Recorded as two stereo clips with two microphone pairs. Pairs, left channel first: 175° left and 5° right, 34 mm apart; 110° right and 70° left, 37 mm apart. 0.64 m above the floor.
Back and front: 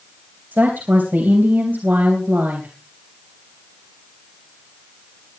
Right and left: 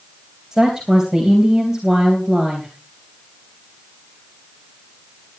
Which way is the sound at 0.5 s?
5° right.